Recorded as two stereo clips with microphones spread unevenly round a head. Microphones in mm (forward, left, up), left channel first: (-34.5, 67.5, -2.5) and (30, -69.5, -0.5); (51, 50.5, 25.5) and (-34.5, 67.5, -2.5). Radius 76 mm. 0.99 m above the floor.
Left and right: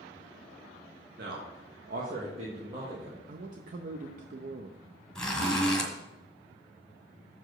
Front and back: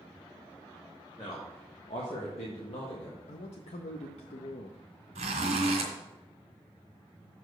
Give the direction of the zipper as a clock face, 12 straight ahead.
5 o'clock.